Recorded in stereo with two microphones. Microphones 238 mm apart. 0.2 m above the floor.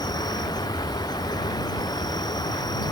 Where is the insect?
15° left (ahead or behind).